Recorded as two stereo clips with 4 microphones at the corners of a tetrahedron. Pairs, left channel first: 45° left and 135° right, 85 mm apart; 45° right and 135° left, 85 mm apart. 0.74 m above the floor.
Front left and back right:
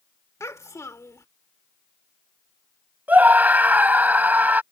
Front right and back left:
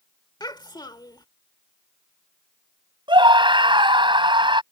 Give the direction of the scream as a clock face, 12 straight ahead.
7 o'clock.